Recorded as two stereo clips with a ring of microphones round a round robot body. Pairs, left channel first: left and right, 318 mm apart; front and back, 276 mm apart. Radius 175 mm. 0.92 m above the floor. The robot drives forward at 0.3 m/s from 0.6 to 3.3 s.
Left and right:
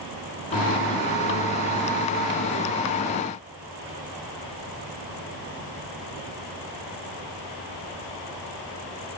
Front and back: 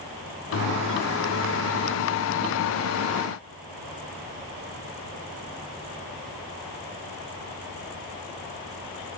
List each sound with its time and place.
Only background noise.